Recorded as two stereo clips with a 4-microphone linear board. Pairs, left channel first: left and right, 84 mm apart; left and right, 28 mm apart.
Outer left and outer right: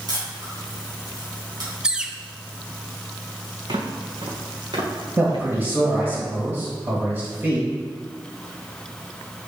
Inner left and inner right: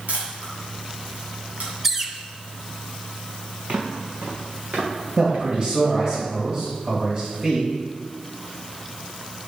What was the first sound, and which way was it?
A camera shutter, 55° right (ahead or behind).